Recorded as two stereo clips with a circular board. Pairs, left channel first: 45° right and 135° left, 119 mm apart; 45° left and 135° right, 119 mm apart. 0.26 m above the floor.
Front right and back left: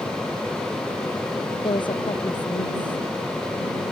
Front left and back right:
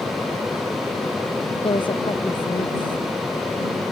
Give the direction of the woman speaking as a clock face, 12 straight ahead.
12 o'clock.